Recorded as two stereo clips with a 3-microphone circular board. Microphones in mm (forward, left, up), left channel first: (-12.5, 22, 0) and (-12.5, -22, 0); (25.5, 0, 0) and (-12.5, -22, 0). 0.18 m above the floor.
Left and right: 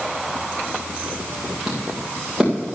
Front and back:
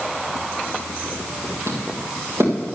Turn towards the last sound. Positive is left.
turn(degrees=-165)